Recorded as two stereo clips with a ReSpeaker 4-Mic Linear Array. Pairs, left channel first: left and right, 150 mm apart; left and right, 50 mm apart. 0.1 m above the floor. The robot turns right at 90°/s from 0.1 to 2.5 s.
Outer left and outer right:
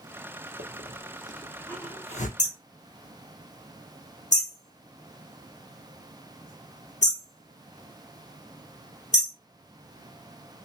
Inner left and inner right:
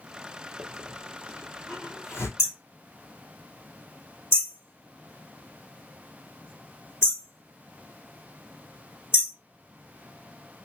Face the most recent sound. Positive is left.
turn(degrees=50)  # may be behind; listen again after turning